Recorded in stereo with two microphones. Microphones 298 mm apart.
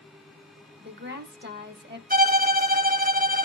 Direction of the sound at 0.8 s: 35° right (ahead or behind).